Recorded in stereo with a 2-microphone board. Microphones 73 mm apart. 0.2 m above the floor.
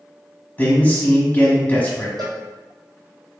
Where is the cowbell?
65° right (ahead or behind), 1.2 m.